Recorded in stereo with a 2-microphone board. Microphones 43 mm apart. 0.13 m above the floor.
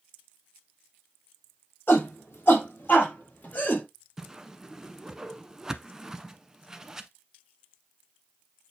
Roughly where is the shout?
Left.